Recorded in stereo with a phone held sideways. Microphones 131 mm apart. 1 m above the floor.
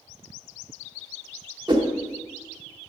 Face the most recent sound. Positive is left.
turn(degrees=-35)  # may be behind; listen again after turning